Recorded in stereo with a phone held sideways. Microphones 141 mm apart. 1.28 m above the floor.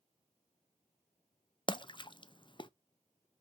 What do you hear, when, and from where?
1.7 s a splash: 35° left (ahead or behind), 0.5 m